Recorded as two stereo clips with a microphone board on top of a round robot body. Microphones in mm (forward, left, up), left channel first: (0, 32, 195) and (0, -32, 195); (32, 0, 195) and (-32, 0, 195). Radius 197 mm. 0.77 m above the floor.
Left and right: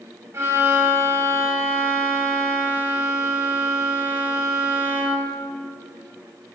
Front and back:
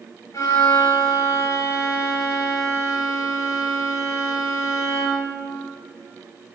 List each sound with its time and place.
0.3 s a violin: 40° right, 1.8 m